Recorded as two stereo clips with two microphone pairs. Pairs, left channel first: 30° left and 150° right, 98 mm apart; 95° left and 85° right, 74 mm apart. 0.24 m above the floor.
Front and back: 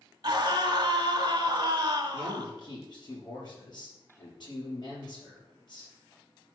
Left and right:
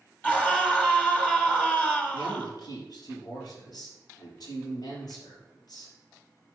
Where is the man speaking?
70° left, 5 m.